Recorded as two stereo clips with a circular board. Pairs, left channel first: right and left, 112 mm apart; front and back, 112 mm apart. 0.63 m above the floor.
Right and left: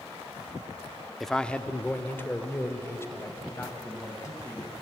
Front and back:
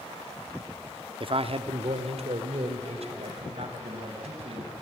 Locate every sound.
1.2 s a man speaking: straight behind, 0.8 m; by 4.7 s 155° right, 4.5 m